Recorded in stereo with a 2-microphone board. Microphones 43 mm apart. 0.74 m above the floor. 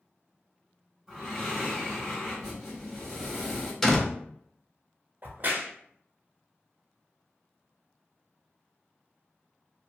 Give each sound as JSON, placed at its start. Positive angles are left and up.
{"t": 1.1, "sound": "breathing", "side_deg": -10, "distance_m": 1.3}
{"t": 3.8, "sound": "a door slam", "side_deg": 5, "distance_m": 0.5}
{"t": 5.2, "sound": "a crack", "side_deg": -45, "distance_m": 0.5}